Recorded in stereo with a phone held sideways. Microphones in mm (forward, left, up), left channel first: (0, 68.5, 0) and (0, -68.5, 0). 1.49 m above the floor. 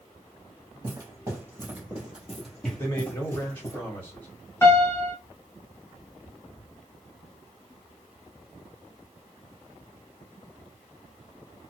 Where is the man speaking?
25° left (ahead or behind), 1.4 m.